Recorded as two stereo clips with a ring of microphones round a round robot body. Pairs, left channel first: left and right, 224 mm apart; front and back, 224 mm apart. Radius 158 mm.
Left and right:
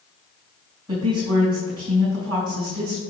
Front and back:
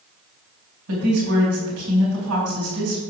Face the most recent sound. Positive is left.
turn(degrees=-165)